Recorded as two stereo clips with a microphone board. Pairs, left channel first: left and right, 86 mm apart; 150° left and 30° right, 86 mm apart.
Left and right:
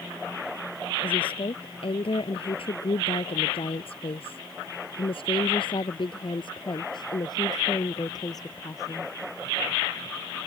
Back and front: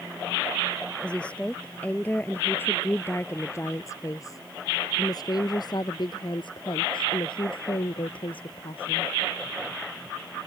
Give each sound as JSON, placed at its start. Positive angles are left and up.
{"t": 1.0, "sound": "a woman speaking", "azimuth_deg": 70}